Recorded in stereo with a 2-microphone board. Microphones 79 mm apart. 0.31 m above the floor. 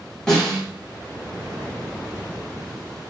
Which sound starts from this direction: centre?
A snare drum, at 0.3 s.